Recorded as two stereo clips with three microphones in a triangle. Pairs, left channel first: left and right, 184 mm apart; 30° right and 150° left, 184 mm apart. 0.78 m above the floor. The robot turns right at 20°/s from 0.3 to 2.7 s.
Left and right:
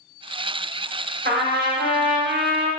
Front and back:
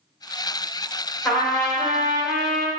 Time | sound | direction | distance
1.2 | a trumpet | 115° right | 0.7 m